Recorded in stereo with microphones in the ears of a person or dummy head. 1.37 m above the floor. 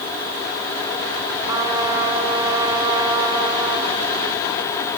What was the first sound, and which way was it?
A trumpet, 15° right (ahead or behind).